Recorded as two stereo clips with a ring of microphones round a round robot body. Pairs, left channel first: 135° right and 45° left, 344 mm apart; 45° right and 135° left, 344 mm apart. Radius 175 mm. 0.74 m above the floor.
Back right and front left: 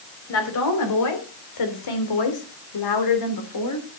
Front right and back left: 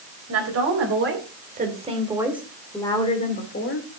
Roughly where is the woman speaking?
Behind.